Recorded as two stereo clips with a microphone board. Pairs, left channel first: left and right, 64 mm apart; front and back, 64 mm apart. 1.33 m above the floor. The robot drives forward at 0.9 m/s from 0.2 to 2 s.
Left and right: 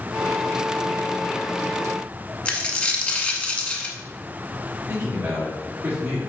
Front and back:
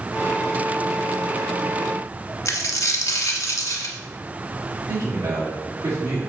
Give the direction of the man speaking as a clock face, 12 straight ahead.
5 o'clock.